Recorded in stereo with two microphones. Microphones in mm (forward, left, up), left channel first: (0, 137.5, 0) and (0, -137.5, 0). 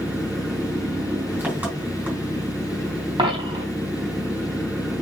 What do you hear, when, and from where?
0.0 s an engine running: 5° right (ahead or behind), 4 m
3.2 s a dropped coin: 15° right (ahead or behind), 3.5 m